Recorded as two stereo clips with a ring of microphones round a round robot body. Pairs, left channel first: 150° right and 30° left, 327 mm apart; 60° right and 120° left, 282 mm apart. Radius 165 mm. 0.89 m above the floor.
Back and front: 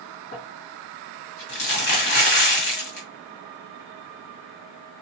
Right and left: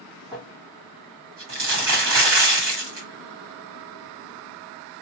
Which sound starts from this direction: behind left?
Crumpling, at 0.3 s.